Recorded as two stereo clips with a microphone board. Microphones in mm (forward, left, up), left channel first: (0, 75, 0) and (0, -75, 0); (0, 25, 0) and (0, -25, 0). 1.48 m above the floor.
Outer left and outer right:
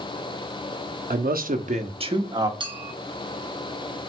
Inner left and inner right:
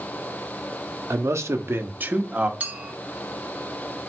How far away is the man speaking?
About 0.5 m.